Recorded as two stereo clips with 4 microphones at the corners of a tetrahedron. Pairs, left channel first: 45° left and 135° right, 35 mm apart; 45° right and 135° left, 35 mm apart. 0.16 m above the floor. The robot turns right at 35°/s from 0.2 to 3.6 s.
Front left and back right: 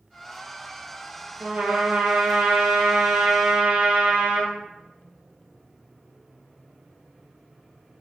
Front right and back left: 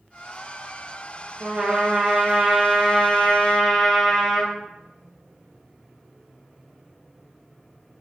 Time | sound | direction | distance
1.4 | a trumpet | straight behind | 3 m